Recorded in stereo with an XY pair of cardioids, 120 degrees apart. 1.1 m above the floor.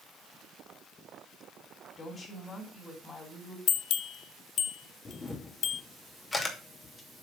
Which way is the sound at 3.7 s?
60° left.